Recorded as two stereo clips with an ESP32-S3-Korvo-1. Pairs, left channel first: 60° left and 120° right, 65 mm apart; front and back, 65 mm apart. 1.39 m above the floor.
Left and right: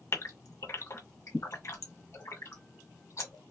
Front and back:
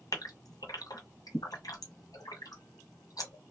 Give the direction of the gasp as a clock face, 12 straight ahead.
11 o'clock.